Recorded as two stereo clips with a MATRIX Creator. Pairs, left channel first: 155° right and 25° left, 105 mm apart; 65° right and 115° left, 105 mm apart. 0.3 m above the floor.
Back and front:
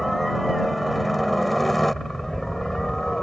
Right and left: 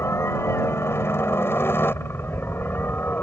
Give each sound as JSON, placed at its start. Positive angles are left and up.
{"t": 0.0, "sound": "a helicopter", "azimuth_deg": -65}